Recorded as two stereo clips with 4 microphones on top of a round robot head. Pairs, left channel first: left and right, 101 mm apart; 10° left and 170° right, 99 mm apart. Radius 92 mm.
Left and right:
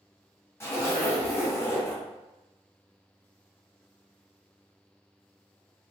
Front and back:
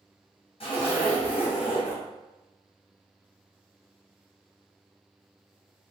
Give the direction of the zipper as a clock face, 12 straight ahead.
11 o'clock.